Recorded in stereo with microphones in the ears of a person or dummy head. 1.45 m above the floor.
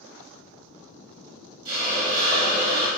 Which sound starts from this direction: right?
A hiss, at 1.6 s.